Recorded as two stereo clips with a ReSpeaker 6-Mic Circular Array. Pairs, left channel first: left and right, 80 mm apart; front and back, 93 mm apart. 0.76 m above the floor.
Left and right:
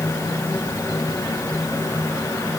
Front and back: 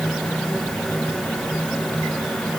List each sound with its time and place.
Only background noise.